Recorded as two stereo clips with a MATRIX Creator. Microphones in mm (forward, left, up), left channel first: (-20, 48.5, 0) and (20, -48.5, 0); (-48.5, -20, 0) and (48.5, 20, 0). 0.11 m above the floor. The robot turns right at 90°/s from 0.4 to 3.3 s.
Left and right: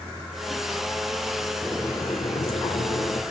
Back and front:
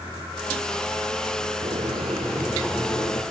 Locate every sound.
1.6 s boiling: 30° left, 3 m; by 3.2 s 170° left, 3 m